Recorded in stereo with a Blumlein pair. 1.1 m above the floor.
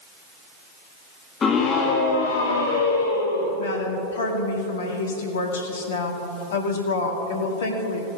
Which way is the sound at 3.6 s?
60° left.